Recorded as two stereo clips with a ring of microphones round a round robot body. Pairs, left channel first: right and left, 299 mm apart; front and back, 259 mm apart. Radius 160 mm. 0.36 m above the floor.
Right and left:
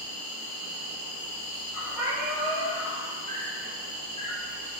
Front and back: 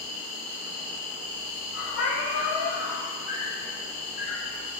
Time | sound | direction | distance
0.0 | an insect | 55° right | 0.8 m
1.9 | a cat meowing | 35° left | 1.8 m